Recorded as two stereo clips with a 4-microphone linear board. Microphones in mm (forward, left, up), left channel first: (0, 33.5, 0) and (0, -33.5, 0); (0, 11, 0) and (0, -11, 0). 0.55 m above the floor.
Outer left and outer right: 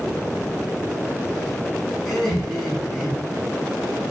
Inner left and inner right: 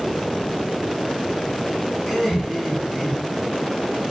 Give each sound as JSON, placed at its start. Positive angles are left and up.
{"t": 2.0, "sound": "laughter", "side_deg": -10, "distance_m": 5.0}